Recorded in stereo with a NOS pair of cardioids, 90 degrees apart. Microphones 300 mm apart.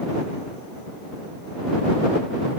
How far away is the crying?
No crying in this recording.